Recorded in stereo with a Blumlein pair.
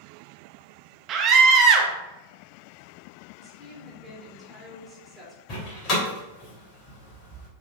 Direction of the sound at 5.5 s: 35° left.